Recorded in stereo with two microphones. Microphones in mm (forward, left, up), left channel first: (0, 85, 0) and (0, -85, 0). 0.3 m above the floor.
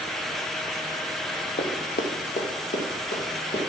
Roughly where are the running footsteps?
Left.